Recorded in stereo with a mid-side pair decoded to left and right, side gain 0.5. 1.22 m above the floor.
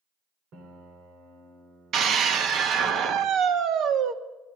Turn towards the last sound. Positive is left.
turn(degrees=-65)